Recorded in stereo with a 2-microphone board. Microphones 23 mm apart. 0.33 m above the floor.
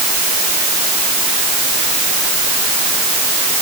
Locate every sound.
Only background noise.